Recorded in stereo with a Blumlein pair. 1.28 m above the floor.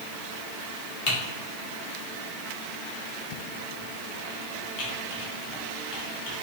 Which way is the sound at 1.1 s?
30° left.